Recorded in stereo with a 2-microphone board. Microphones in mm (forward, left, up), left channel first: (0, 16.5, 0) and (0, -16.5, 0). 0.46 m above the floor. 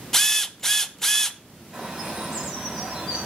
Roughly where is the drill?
Centre.